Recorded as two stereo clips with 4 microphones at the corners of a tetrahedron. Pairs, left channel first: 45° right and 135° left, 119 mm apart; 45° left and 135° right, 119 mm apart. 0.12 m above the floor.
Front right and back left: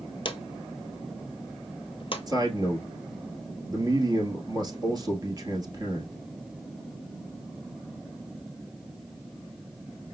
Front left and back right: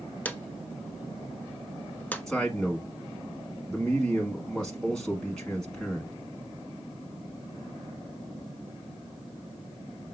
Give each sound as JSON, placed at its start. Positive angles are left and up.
{"t": 0.2, "sound": "a drawer", "azimuth_deg": -30, "distance_m": 0.5}
{"t": 2.3, "sound": "a man speaking", "azimuth_deg": 125, "distance_m": 1.3}